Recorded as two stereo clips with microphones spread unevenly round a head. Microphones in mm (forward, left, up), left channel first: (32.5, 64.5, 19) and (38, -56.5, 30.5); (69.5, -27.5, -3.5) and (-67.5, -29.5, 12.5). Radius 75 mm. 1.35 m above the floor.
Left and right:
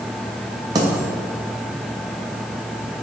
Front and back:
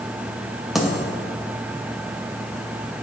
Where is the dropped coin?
105° right, 0.7 m.